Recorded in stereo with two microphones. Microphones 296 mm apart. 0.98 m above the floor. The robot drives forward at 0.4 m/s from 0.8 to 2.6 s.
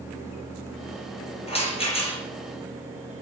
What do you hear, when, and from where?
1.5 s a rattle: 20° left (ahead or behind), 7.5 m